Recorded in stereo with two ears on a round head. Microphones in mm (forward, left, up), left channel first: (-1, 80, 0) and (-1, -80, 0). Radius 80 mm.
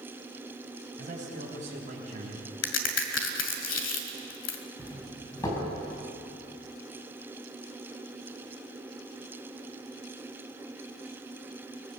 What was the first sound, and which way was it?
A man speaking, 45° right (ahead or behind).